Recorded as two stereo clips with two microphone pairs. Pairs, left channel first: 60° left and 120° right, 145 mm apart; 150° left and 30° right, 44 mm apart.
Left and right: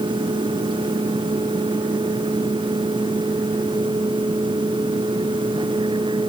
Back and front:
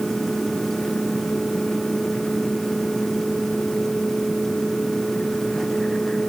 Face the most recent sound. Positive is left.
No sound to turn to.